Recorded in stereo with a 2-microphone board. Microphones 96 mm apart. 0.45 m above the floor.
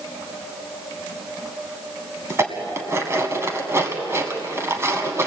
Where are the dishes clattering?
30° right (ahead or behind), 2 m.